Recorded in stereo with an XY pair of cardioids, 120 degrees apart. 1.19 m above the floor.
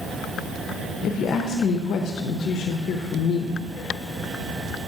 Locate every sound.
1.0 s a woman speaking: 60° left, 0.6 m